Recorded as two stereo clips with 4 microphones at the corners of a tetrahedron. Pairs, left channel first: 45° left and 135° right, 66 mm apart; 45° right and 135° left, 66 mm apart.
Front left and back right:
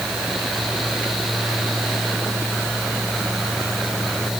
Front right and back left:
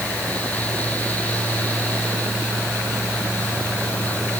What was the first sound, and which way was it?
Only background noise.